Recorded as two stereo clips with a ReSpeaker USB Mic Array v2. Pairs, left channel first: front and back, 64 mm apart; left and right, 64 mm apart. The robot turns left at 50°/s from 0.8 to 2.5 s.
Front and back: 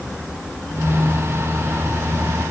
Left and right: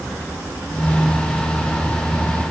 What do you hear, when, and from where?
Only background noise.